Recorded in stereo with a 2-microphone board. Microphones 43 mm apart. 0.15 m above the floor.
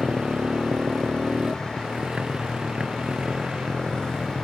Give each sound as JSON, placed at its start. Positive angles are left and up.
{"t": 0.0, "sound": "a motorcycle", "side_deg": -20}